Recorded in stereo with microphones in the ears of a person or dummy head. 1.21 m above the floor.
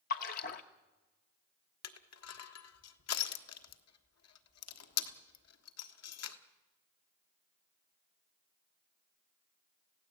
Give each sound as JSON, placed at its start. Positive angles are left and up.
{"t": 0.1, "sound": "a splash", "side_deg": 50, "distance_m": 1.3}
{"t": 1.8, "sound": "crushing", "side_deg": 80, "distance_m": 1.5}